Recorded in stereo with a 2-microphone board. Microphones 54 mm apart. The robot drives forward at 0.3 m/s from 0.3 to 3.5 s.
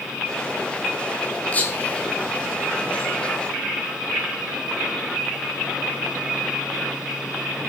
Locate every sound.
1.5 s whispering: 30° left (ahead or behind), 1.4 m